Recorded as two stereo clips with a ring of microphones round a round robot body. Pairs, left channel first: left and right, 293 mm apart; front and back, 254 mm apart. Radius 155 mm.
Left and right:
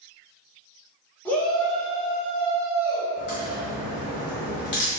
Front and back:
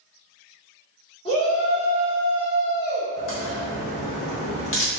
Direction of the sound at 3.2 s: 40° left.